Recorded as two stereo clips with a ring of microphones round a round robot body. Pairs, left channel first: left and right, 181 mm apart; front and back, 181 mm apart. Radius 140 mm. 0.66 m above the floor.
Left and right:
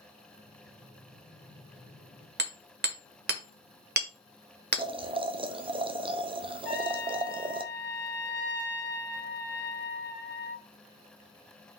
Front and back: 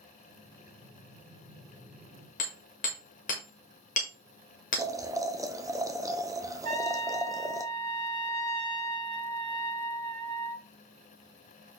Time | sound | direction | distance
0.3 | breathing | 115° left | 3.5 m
2.4 | hammering | 60° right | 1.5 m
4.8 | boiling | 125° right | 0.7 m
6.6 | a trumpet | 160° left | 4.5 m